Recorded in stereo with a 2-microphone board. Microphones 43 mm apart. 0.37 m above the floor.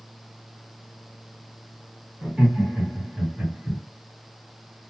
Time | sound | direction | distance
2.2 | laughter | 30° right (ahead or behind) | 1.9 m